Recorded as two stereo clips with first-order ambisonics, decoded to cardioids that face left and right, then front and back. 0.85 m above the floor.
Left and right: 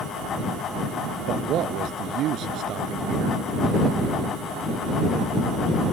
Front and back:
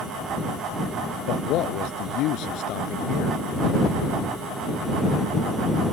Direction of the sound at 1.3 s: 40° right.